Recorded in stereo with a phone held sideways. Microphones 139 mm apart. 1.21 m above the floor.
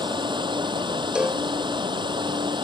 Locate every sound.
0.0 s running water: 35° right (ahead or behind)
1.1 s a cowbell: 10° right (ahead or behind)